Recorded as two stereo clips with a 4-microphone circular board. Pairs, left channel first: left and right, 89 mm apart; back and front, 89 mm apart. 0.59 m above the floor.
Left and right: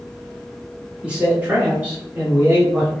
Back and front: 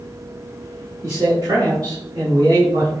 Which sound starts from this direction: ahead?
A man speaking, at 1.0 s.